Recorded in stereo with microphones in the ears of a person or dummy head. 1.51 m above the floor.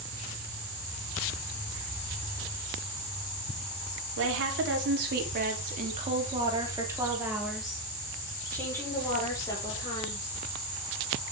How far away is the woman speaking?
About 4 m.